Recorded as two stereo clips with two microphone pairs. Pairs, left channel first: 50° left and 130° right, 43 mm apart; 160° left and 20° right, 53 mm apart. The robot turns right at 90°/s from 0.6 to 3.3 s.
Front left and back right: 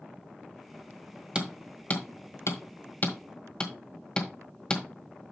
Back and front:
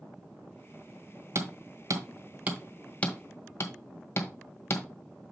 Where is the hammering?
55° right, 1.6 m; by 4.9 s 120° left, 1.6 m.